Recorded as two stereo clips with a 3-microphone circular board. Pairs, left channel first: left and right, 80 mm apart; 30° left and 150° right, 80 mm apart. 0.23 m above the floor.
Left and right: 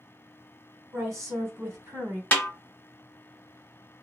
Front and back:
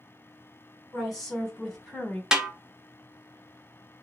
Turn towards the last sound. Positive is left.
turn(degrees=135)